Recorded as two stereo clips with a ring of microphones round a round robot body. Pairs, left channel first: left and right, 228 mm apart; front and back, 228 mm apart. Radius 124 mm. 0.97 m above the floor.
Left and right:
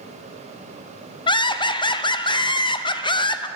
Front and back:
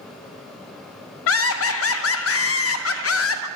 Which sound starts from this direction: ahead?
Laughter, at 1.3 s.